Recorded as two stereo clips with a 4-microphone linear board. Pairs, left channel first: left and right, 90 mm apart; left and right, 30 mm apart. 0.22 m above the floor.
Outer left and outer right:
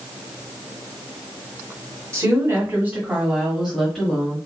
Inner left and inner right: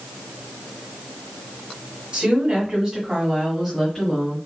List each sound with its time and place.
2.1 s a woman speaking: 35° right (ahead or behind), 1.6 m; by 4.4 s 15° left (ahead or behind), 1.3 m